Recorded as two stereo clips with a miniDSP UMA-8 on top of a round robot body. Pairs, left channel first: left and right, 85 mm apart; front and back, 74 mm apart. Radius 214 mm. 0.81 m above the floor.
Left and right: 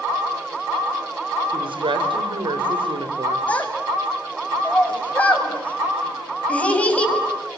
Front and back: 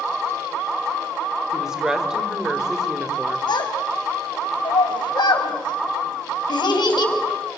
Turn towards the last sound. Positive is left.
turn(degrees=15)